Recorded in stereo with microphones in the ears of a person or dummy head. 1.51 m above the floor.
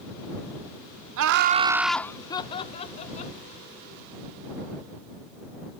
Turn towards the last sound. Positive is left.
turn(degrees=35)  # may be behind; listen again after turning